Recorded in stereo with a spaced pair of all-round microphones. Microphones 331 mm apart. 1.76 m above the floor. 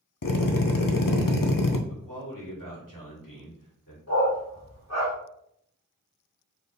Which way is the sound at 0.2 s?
75° left (ahead or behind).